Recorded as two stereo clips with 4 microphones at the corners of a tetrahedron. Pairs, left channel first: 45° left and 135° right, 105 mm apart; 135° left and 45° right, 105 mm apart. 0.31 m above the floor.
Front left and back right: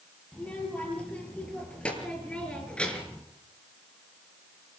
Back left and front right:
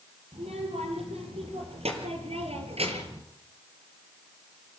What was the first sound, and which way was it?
A child speaking, 35° right.